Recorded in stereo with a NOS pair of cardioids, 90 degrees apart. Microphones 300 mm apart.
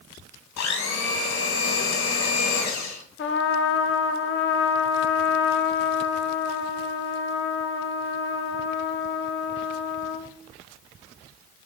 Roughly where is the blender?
Ahead left.